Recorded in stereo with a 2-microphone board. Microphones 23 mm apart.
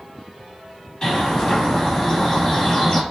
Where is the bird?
30° left (ahead or behind), 2.0 m.